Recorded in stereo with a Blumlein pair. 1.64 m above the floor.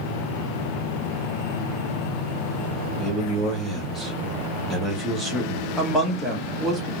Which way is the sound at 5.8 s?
10° right.